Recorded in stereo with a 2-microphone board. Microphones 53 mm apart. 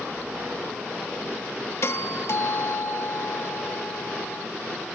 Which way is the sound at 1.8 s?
60° left (ahead or behind).